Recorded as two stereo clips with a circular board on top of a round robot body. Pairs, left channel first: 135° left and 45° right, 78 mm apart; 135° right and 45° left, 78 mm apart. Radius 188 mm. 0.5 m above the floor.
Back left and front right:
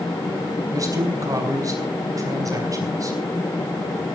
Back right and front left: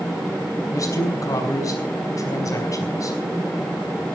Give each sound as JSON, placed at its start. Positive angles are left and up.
{"t": 0.7, "sound": "a man speaking", "azimuth_deg": -90, "distance_m": 5.0}